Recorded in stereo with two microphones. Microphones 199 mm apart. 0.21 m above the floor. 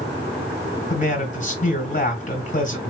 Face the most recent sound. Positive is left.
turn(degrees=40)  # may be behind; listen again after turning